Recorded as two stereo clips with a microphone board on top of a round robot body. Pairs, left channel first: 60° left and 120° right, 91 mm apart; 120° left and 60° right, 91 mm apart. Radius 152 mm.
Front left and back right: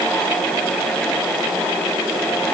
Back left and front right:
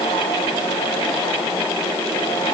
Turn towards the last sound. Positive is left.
No sound to turn to.